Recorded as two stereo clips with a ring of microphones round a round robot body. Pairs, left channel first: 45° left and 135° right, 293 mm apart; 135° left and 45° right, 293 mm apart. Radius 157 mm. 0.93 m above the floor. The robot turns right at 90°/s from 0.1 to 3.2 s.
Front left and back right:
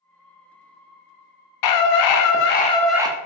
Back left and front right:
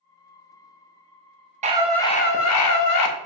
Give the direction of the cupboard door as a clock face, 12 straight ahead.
I don't hear a cupboard door.